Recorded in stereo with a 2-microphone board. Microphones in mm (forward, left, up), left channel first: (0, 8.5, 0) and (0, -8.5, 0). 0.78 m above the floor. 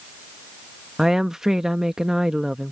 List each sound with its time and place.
1.0 s a woman speaking: 35° right (ahead or behind)